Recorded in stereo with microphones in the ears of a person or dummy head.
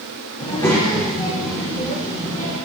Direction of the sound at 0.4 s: 25° left (ahead or behind).